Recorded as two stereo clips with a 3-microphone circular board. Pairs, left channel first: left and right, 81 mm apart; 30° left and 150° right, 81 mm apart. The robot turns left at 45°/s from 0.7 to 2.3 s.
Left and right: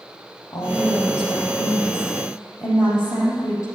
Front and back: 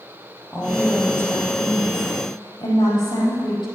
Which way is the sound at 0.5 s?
115° left.